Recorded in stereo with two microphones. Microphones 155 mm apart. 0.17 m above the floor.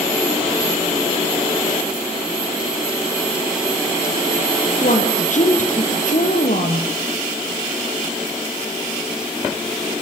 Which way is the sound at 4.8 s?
55° left (ahead or behind).